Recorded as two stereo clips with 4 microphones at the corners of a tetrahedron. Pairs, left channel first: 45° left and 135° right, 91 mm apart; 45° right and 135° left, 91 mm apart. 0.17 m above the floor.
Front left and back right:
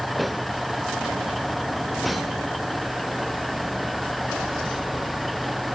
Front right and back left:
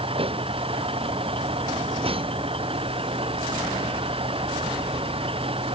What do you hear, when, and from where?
0.0 s a vehicle: 135° left